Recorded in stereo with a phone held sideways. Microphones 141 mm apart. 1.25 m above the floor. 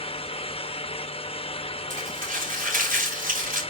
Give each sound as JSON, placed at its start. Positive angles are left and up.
{"t": 0.0, "sound": "a fan", "side_deg": 40, "distance_m": 0.8}
{"t": 1.9, "sound": "crumpling", "side_deg": -80, "distance_m": 5.0}